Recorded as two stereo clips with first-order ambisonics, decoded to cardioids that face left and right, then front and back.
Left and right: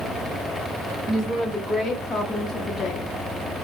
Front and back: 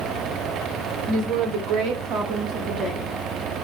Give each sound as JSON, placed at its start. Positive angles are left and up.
{"t": 1.1, "sound": "a woman speaking", "azimuth_deg": -175, "distance_m": 1.3}